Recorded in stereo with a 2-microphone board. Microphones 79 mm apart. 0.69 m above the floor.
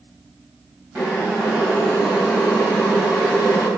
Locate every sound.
0.9 s boiling: 25° right (ahead or behind), 3 m